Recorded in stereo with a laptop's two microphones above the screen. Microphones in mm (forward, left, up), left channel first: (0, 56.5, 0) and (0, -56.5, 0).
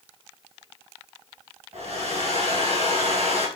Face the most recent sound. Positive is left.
turn(degrees=-75)  # may be behind; listen again after turning